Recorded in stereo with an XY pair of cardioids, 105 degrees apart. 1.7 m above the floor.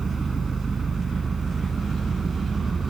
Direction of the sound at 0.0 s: 35° right.